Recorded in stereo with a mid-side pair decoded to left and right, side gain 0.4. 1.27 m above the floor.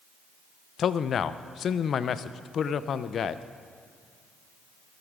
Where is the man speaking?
60° left, 0.6 m.